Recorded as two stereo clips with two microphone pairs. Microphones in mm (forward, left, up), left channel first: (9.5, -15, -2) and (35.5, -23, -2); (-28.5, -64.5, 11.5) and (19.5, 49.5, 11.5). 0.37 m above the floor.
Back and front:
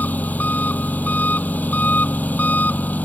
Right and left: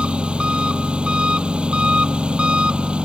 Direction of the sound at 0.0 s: 150° left.